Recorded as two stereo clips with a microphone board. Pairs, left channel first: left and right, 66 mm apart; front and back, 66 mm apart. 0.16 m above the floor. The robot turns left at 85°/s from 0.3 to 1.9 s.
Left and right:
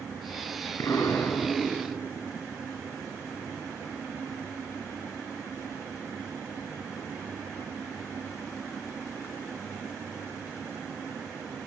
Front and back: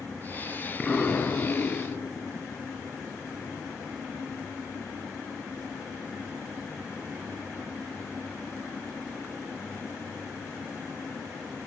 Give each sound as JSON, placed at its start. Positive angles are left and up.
{"t": 0.8, "sound": "an explosion", "azimuth_deg": 75, "distance_m": 1.8}